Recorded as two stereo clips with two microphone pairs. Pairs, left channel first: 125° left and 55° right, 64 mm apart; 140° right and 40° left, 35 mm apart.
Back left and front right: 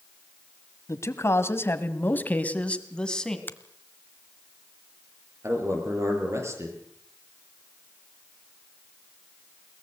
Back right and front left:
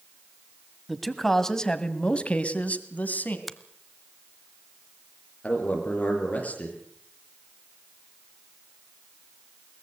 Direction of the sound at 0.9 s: 130° left.